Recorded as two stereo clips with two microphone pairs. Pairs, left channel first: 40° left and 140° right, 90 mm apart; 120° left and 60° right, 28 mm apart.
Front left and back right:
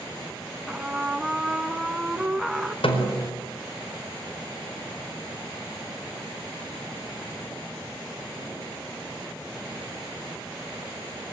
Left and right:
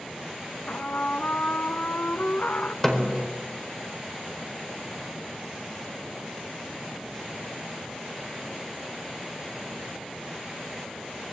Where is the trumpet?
135° left, 1.7 m.